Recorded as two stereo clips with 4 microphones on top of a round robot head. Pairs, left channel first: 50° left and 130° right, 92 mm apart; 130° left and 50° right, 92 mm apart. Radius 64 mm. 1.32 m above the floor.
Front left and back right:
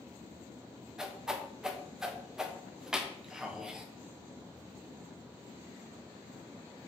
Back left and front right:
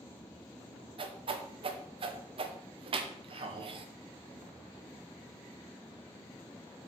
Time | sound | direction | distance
1.0 | a whoosh | 45° right | 1.0 m